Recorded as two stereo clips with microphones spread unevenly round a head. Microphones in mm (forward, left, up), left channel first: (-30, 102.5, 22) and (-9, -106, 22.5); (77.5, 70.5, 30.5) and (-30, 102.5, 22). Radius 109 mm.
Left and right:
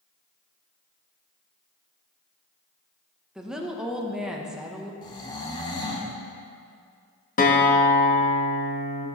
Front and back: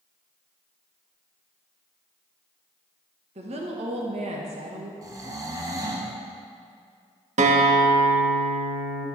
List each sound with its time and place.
3.4 s a woman speaking: 170° right, 1.0 m
5.0 s snoring: 140° left, 1.0 m
7.4 s a guitar: 145° left, 0.9 m